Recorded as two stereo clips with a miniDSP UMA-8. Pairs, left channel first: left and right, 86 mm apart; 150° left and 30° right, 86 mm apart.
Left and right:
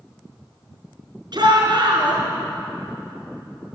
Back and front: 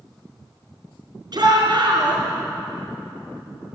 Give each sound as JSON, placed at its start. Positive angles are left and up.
{"t": 1.3, "sound": "a shout", "azimuth_deg": -60, "distance_m": 4.0}